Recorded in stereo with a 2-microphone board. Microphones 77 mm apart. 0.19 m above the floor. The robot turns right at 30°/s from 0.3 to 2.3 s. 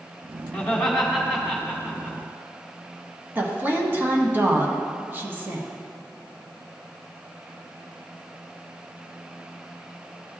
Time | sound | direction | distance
0.5 | laughter | 10° left (ahead or behind) | 1.6 m
3.4 | a woman speaking | 30° right (ahead or behind) | 1.2 m